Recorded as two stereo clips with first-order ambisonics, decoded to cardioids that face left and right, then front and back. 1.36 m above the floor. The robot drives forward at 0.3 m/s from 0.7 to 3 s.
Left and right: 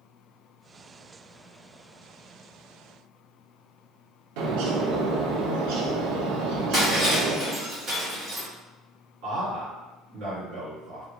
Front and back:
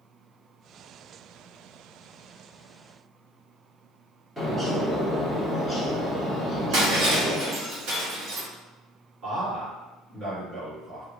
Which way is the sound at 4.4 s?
95° right.